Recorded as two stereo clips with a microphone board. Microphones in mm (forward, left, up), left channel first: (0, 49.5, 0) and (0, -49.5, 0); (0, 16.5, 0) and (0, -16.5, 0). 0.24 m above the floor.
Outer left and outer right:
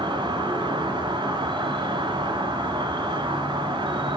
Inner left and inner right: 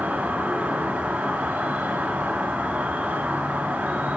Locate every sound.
0.0 s an insect: 50° right (ahead or behind), 2.0 m